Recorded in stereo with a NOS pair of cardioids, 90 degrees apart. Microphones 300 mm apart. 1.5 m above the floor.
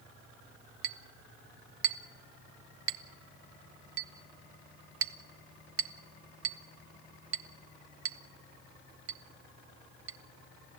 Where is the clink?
45° right, 1.2 m.